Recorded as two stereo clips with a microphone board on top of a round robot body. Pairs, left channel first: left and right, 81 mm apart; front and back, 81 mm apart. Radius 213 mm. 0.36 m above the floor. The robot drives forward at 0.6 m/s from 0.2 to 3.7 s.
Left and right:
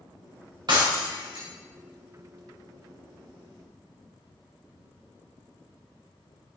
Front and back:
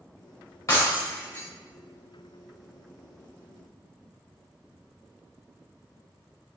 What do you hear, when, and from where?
0.7 s breaking glass: 55° right, 3.5 m; by 1.5 s 60° right, 3.5 m